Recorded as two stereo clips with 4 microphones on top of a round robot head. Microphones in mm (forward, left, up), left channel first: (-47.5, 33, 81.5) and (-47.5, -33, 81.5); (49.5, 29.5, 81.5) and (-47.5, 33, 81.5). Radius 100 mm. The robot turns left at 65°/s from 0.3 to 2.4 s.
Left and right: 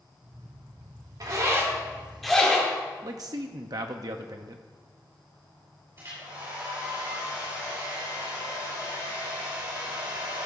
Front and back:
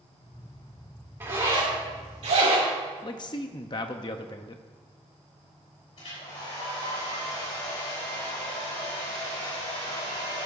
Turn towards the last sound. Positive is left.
turn(degrees=-35)